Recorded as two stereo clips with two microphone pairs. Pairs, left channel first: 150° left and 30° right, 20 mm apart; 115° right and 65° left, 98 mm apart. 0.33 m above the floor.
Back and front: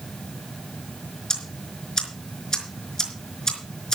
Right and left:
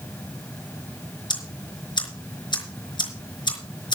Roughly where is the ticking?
Behind right.